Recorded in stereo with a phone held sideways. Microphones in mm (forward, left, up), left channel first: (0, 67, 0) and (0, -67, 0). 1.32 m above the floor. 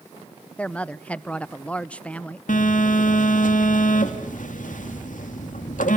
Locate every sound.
0.6 s a woman speaking: 10° left (ahead or behind), 0.7 m
2.5 s a phone buzzing: 80° left, 2.5 m